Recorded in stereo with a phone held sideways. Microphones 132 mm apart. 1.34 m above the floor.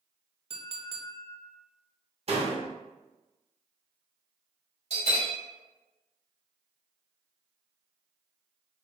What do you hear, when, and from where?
0.5 s a clink: 45° right (ahead or behind), 0.6 m
2.3 s a door slam: 50° right (ahead or behind), 0.7 m
4.9 s a bell: 55° right (ahead or behind), 2.0 m